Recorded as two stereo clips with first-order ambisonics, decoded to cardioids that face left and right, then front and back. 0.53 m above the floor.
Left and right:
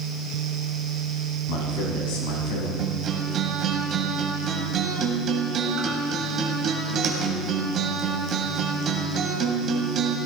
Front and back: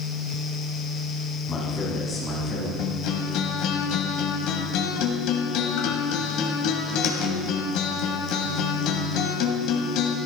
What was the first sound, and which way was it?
A man speaking, 80° left.